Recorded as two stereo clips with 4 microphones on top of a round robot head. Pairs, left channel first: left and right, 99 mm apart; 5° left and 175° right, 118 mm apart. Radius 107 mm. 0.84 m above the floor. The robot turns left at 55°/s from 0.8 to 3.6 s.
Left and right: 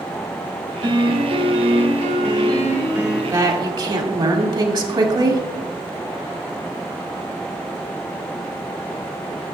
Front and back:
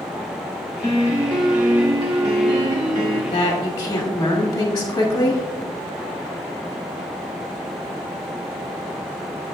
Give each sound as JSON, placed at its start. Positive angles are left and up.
{"t": 0.8, "sound": "a piano", "azimuth_deg": -50, "distance_m": 2.5}
{"t": 3.3, "sound": "a woman speaking", "azimuth_deg": -40, "distance_m": 2.0}